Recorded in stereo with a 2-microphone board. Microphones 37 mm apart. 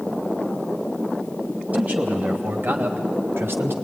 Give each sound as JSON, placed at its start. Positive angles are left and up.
{"t": 1.7, "sound": "a man speaking", "side_deg": -40, "distance_m": 4.0}